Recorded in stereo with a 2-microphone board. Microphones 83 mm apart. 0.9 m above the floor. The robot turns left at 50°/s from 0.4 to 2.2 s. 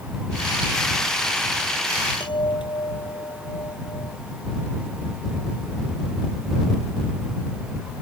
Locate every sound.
2.2 s a chime: 85° left